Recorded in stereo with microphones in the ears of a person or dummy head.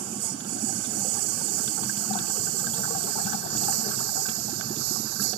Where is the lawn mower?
80° right.